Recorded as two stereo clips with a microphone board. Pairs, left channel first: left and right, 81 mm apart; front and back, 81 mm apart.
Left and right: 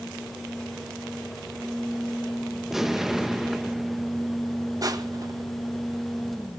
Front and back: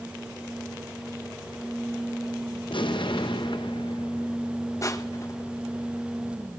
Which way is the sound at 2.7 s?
5° right.